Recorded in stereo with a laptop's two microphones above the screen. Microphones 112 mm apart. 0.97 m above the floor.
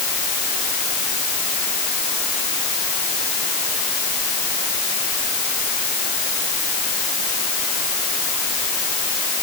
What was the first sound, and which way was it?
Only background noise.